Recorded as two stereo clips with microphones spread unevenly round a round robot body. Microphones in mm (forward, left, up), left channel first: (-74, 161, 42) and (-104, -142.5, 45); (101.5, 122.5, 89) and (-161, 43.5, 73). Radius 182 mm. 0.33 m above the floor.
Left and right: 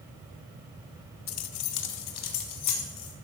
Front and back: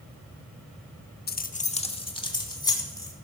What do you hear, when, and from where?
1.3 s keys jangling: 65° left, 0.8 m; by 3.1 s 95° left, 3 m